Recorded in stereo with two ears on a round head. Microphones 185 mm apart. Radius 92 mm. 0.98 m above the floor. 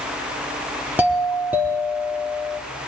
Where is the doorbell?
10° right (ahead or behind), 3 m.